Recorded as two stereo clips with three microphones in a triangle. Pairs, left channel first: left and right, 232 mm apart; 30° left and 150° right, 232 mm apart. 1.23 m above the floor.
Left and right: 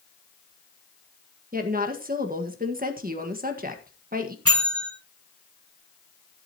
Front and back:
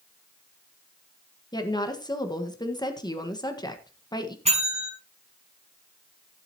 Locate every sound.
1.5 s a woman speaking: 45° right, 1.6 m
4.5 s a bell: 90° right, 4.5 m